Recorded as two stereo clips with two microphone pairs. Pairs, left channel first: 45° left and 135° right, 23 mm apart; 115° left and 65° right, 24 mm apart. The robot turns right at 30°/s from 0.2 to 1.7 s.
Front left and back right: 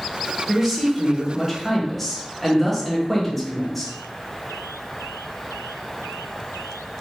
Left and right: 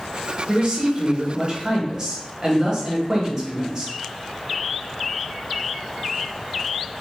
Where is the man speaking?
70° right, 1.0 m; by 3.9 s 30° right, 1.0 m.